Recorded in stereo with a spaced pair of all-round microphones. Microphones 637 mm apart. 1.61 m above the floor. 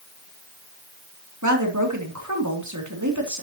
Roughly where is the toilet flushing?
No toilet flushing in this recording.